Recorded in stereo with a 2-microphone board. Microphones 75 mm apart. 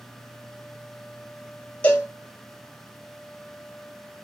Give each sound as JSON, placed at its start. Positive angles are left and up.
{"t": 1.8, "sound": "a cowbell", "side_deg": 20, "distance_m": 0.8}